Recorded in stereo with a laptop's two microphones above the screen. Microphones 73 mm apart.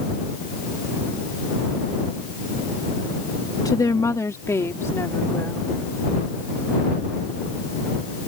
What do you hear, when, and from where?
3.6 s a woman speaking: 50° left (ahead or behind); by 5.7 s 30° left (ahead or behind)